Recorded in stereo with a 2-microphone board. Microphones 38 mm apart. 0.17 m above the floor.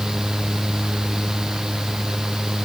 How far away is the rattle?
No rattle in this recording.